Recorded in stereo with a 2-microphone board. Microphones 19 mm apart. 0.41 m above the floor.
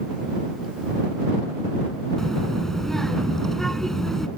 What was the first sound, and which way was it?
A child speaking, 25° left (ahead or behind).